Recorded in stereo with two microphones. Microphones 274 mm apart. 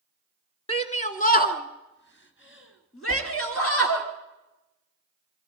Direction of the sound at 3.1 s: 50° left (ahead or behind).